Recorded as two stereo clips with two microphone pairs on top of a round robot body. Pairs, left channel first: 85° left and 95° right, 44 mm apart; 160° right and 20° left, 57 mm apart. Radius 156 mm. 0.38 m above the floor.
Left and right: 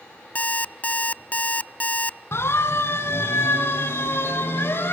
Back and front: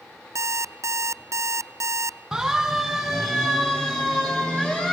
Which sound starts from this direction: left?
A siren, at 2.3 s.